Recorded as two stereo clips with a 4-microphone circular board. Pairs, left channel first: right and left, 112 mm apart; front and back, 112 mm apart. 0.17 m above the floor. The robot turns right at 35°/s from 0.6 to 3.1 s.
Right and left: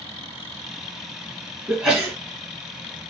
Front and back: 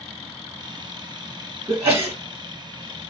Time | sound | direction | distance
1.7 | a sneeze | 155° left | 1.2 m